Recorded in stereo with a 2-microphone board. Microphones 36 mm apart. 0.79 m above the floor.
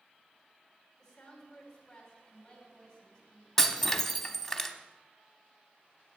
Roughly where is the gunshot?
No gunshot in this recording.